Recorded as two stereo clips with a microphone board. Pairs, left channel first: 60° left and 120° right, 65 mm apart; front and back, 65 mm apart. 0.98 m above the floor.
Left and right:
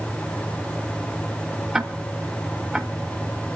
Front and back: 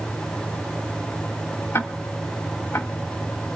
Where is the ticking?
40° right, 1.3 m.